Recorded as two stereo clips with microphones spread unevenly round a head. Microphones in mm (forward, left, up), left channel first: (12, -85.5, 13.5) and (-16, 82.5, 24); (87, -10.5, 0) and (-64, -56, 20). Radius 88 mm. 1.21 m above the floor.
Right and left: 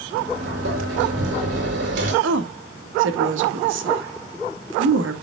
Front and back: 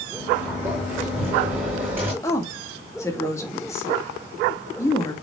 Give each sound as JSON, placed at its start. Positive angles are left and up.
{"t": 0.1, "sound": "a sliding door", "azimuth_deg": 120, "distance_m": 7.0}
{"t": 2.2, "sound": "a woman speaking", "azimuth_deg": 90, "distance_m": 2.0}